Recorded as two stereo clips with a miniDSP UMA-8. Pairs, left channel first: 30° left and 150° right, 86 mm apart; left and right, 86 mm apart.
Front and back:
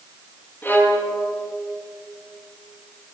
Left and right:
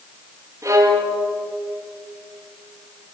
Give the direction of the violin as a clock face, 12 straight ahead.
1 o'clock.